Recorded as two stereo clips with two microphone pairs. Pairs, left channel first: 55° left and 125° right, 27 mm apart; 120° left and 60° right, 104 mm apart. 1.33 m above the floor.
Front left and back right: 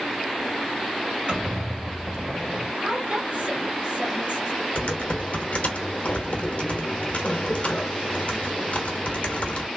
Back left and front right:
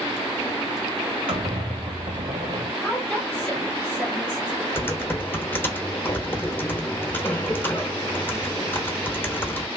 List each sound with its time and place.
1.3 s a squeak: 85° right, 1.8 m
2.8 s a woman speaking: 160° right, 1.9 m
4.8 s typing on a keyboard: 55° left, 0.9 m